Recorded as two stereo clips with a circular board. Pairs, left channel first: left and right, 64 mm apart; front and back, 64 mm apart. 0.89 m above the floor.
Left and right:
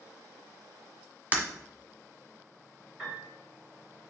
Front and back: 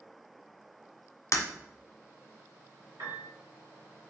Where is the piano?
170° right, 3.5 m.